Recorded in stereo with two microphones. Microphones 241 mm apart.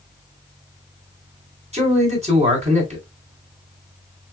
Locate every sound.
1.7 s a man speaking: 25° right (ahead or behind), 1.8 m